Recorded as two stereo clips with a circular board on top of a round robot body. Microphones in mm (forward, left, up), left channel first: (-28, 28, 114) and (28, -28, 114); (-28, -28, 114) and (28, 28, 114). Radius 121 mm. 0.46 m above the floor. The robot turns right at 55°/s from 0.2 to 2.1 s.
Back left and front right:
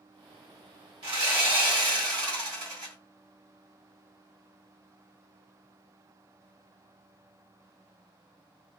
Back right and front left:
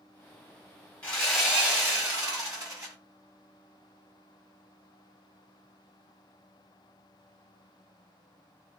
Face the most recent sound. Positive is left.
turn(degrees=-5)